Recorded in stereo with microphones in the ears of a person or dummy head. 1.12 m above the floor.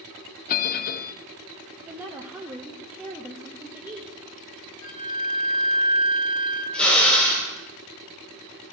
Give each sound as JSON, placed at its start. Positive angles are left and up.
{"t": 0.5, "sound": "a bell", "side_deg": 50, "distance_m": 0.6}
{"t": 1.9, "sound": "a woman speaking", "side_deg": -15, "distance_m": 0.8}
{"t": 4.8, "sound": "a flute", "side_deg": -50, "distance_m": 4.0}
{"t": 6.7, "sound": "a drill", "side_deg": 5, "distance_m": 3.5}